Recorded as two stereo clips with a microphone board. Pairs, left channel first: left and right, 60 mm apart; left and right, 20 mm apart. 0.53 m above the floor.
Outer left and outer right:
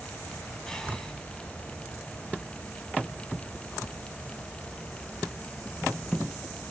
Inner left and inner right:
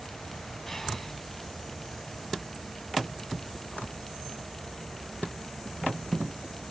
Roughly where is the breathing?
Centre.